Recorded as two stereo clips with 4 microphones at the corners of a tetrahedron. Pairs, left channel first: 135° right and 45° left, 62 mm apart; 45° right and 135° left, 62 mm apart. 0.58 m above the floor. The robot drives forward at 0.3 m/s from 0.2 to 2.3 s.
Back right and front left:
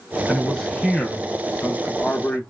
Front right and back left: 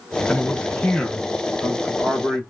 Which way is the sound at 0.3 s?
50° right.